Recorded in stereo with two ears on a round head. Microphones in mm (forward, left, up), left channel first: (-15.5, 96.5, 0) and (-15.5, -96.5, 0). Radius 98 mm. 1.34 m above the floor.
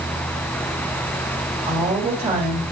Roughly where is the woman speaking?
Right.